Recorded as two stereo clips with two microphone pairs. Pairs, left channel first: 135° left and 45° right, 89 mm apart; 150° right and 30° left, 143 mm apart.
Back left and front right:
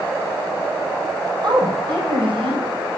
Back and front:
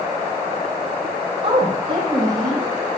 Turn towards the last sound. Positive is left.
turn(degrees=-35)